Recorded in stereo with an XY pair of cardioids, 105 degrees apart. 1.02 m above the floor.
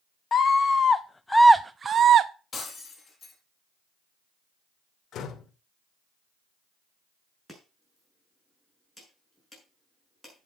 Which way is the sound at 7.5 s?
10° left.